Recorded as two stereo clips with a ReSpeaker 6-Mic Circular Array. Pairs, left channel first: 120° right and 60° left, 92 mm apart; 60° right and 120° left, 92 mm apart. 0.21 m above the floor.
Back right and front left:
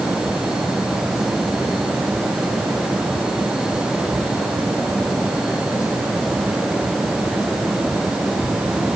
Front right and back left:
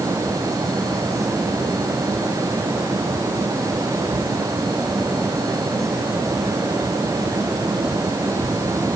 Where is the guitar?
No guitar in this recording.